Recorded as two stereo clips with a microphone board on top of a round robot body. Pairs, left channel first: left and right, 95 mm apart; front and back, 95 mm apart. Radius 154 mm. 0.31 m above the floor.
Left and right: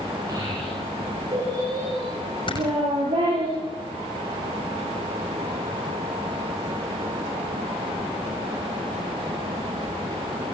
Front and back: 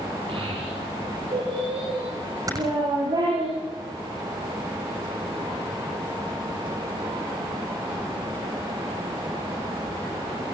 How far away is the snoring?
About 6.5 m.